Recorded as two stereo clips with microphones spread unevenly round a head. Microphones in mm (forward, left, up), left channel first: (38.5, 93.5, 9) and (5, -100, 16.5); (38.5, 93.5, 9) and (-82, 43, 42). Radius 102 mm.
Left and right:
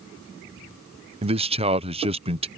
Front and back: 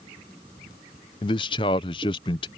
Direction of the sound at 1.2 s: 35° right.